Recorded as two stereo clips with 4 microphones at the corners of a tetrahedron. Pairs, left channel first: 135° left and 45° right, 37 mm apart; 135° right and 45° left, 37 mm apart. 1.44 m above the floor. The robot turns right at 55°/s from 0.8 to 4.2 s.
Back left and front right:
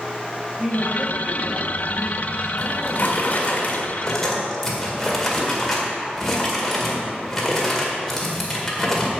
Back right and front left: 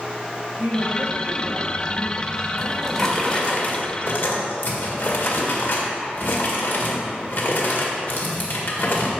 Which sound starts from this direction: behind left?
A drawer, at 2.6 s.